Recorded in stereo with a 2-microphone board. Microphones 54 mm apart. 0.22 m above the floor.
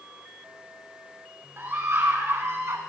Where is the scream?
40° right (ahead or behind), 3 m; by 2.8 s 50° right (ahead or behind), 2 m.